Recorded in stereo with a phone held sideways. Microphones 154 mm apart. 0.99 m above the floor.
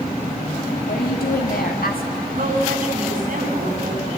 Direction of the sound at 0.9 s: 75° left (ahead or behind).